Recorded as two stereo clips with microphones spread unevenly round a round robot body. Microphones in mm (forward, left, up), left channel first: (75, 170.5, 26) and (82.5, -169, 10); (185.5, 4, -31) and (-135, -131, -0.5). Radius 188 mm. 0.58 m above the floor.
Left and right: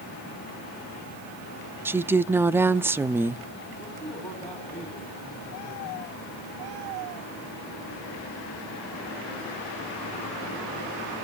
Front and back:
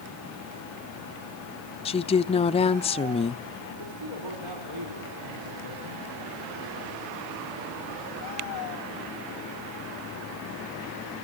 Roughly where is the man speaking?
Behind.